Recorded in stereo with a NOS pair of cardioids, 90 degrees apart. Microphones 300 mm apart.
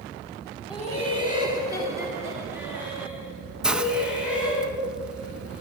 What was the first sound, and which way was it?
Laughter, 20° left.